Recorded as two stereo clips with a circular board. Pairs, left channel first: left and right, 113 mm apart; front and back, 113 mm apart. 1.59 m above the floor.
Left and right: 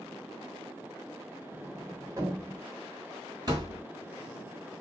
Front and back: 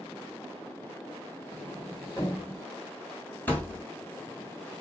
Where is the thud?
65° right, 1.8 m.